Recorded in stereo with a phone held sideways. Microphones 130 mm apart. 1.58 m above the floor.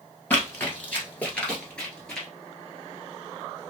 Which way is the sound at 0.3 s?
15° left (ahead or behind).